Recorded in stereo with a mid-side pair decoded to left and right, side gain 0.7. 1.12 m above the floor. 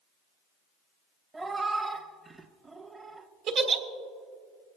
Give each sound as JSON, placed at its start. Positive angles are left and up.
{"t": 1.3, "sound": "a cat meowing", "azimuth_deg": -20, "distance_m": 1.0}
{"t": 3.5, "sound": "a giggle", "azimuth_deg": -55, "distance_m": 1.4}